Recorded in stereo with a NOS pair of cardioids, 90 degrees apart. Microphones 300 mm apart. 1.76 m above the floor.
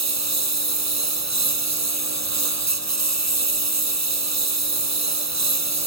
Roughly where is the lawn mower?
Ahead right.